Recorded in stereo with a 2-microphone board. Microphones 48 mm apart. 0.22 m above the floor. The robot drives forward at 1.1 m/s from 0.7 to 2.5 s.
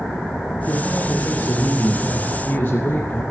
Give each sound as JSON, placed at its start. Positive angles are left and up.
{"t": 0.7, "sound": "a man speaking", "side_deg": 60, "distance_m": 4.5}